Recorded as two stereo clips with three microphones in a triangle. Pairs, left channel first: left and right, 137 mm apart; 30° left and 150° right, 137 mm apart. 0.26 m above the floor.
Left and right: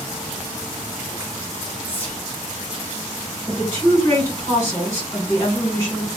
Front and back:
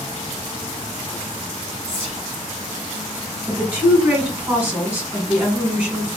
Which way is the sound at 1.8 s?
20° left.